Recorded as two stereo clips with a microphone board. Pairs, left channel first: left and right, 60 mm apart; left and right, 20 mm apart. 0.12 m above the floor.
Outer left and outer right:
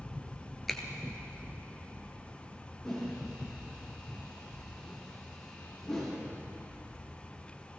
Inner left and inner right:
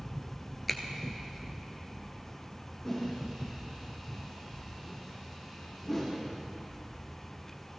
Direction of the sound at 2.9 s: 5° left (ahead or behind).